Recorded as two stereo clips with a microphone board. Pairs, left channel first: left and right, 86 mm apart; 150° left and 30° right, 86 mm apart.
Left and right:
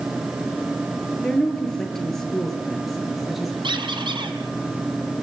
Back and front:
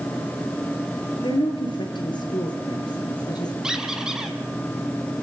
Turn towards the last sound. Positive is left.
turn(degrees=-115)